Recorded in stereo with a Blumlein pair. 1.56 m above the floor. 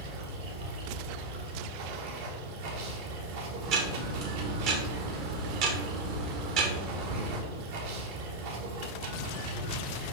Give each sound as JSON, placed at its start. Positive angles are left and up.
{"t": 0.0, "sound": "running water", "azimuth_deg": -50, "distance_m": 1.5}
{"t": 3.6, "sound": "ticking", "azimuth_deg": -40, "distance_m": 1.4}